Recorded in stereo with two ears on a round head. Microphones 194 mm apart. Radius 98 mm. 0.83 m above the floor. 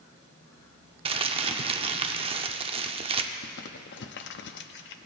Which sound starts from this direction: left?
Crumpling, at 3.4 s.